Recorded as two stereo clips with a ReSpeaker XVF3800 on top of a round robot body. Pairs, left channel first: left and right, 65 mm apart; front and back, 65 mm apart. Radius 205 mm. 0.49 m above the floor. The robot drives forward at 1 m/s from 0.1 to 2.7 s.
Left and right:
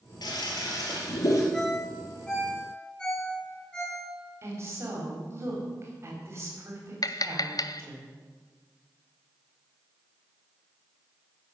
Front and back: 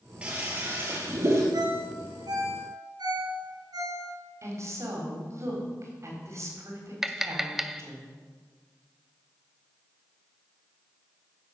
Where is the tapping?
95° left, 0.7 m.